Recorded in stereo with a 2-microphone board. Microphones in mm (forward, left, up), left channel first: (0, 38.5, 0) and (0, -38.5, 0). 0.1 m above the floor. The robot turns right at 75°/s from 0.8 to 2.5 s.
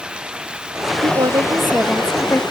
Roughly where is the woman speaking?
Right.